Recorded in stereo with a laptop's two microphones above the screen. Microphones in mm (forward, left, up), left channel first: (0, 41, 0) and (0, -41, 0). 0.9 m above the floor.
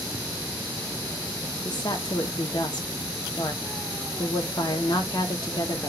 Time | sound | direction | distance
1.6 | a woman speaking | 55° left (ahead or behind) | 0.9 m